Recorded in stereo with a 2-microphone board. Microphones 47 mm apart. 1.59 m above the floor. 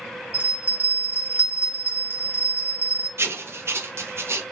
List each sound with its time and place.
0.3 s a bell: 40° right (ahead or behind), 0.8 m
3.2 s writing: 65° right (ahead or behind), 0.5 m